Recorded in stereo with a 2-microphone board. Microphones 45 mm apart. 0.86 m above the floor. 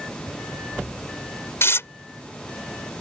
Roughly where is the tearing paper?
Left.